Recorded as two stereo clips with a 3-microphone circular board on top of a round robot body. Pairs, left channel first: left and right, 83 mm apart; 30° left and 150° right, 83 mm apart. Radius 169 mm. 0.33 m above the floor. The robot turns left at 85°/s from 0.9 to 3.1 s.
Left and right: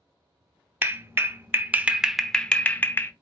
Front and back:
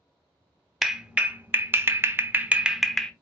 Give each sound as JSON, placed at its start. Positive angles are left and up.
{"t": 0.8, "sound": "a clap", "azimuth_deg": -70, "distance_m": 0.9}